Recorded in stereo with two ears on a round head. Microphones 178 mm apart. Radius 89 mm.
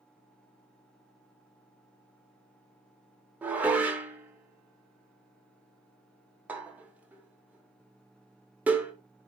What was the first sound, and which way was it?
Dishes clattering, 10° right (ahead or behind).